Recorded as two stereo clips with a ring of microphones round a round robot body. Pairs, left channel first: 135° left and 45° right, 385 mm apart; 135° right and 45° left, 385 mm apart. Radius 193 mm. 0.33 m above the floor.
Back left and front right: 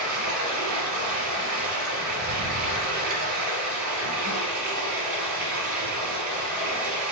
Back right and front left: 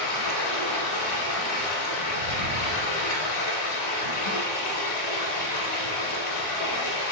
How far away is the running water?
About 1.1 m.